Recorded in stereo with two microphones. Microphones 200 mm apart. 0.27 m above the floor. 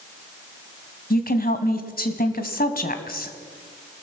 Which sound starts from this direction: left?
A woman speaking, at 1.1 s.